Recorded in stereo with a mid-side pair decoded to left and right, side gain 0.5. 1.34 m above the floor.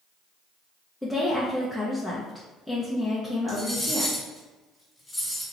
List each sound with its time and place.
1.0 s a woman speaking: 5° left, 0.7 m
3.5 s cutlery clinking: 10° left, 1.9 m